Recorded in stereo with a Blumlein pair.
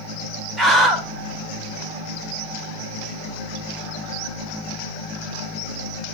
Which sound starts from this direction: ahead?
A scream, at 0.6 s.